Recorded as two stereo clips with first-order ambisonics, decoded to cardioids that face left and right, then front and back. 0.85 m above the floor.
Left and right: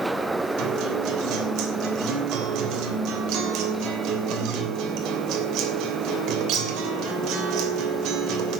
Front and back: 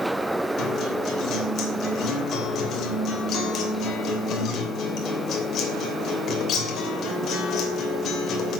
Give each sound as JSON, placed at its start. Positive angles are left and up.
{"t": 0.6, "sound": "a guitar", "azimuth_deg": -55, "distance_m": 3.0}